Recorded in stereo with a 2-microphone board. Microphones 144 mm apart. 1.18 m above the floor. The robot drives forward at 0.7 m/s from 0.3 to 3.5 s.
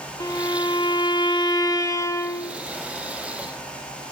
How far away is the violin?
About 0.8 m.